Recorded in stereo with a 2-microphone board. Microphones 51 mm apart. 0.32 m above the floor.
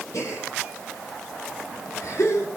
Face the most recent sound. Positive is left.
turn(degrees=85)